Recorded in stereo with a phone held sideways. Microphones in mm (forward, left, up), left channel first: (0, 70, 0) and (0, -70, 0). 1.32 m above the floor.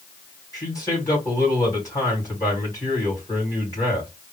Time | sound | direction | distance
0.5 | a man speaking | 25° left (ahead or behind) | 3 m